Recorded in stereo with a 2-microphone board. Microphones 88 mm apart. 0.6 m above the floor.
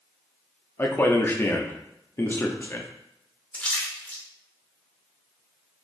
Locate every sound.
0.8 s a man speaking: 25° left (ahead or behind), 0.6 m
3.5 s a splash: 15° left (ahead or behind), 0.7 m